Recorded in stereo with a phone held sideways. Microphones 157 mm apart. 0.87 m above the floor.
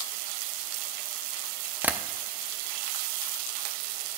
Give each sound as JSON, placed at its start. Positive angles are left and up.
{"t": 1.8, "sound": "tapping", "side_deg": -10, "distance_m": 0.5}